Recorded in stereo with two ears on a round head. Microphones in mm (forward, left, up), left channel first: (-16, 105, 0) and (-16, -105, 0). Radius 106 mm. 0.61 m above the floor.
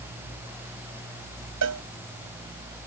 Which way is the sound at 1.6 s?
70° right (ahead or behind).